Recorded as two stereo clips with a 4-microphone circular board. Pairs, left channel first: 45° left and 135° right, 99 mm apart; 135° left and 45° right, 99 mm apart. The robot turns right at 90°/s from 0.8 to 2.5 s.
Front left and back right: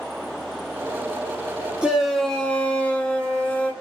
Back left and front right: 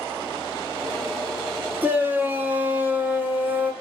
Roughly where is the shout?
Right.